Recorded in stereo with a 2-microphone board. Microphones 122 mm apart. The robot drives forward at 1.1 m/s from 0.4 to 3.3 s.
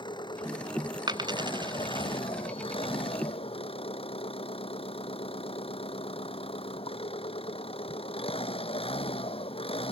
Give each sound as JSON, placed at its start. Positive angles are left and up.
{"t": 0.0, "sound": "an engine running", "side_deg": 40}
{"t": 1.1, "sound": "a dropped coin", "side_deg": -40}